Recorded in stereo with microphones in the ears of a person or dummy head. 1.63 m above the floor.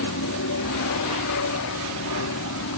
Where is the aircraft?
70° left (ahead or behind).